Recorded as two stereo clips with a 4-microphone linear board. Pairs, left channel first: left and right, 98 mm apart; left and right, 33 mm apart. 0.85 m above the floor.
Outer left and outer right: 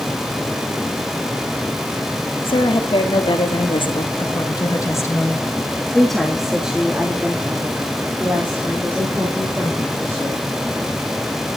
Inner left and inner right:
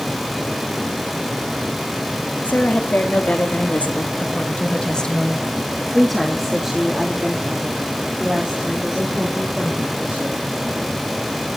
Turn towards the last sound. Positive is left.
turn(degrees=-30)  # may be behind; listen again after turning